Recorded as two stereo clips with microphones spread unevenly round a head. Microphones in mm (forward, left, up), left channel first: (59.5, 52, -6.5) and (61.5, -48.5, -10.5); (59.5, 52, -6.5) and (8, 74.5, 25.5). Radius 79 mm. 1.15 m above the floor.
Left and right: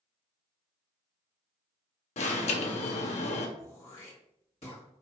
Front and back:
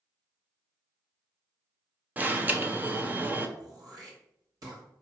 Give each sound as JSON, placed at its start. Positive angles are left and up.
{"t": 2.2, "sound": "an alarm", "azimuth_deg": 105, "distance_m": 0.8}
{"t": 3.6, "sound": "throat clearing", "azimuth_deg": 145, "distance_m": 1.7}